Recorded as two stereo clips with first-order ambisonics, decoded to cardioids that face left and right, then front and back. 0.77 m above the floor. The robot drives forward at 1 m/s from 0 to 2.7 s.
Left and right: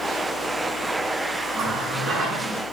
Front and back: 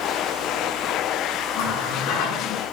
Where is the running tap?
30° right, 7 m; by 2.6 s 35° right, 6 m.